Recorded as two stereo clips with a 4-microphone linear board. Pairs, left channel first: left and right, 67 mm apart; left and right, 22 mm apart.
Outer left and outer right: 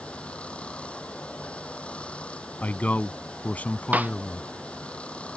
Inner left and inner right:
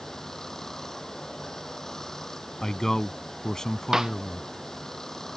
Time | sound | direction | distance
0.0 | running water | 20° left (ahead or behind) | ?
2.6 | a man speaking | 25° left (ahead or behind) | ?
3.9 | a snare drum | 20° right (ahead or behind) | ?